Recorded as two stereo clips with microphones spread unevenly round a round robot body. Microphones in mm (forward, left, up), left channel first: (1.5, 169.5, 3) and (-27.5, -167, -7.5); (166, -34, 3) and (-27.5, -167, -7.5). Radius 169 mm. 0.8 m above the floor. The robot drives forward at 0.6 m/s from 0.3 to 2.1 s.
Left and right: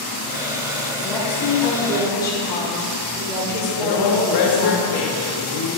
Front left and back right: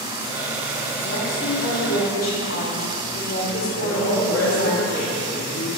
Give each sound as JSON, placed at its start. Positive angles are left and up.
{"t": 1.0, "sound": "a woman speaking", "azimuth_deg": 5, "distance_m": 3.0}
{"t": 3.7, "sound": "a woman speaking", "azimuth_deg": 85, "distance_m": 1.4}